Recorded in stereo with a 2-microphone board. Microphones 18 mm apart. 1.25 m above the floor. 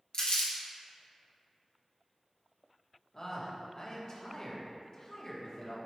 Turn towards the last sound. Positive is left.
turn(degrees=40)  # may be behind; listen again after turning